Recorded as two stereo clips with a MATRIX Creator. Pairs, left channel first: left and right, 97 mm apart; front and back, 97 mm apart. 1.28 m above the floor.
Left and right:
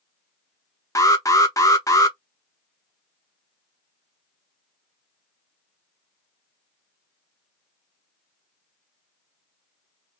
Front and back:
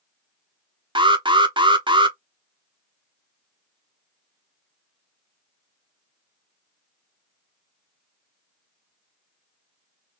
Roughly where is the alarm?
Behind left.